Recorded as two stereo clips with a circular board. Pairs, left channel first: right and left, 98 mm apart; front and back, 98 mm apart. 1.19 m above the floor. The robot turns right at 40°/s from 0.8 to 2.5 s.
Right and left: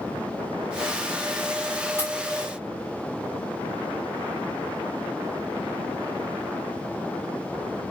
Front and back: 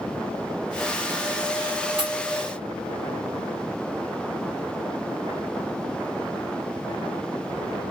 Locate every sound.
2.0 s a pop: 150° right, 1.8 m; by 2.1 s 145° right, 1.8 m